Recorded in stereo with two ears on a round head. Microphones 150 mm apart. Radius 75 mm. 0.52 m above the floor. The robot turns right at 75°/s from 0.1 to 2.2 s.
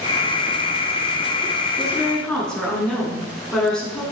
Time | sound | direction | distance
1.8 | a woman speaking | 25° right | 5.5 m